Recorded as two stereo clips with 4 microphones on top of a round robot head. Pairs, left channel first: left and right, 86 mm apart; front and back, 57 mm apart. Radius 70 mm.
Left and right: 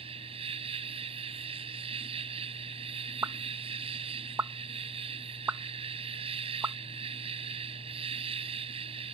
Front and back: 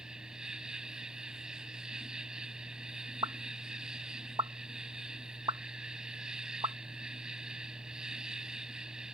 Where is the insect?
100° right.